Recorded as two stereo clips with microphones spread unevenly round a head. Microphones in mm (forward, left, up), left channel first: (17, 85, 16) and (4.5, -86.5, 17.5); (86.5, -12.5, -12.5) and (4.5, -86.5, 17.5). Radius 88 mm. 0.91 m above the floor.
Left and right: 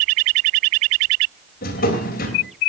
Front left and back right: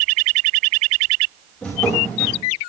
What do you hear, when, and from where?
1.6 s a drawer: 130° left, 3 m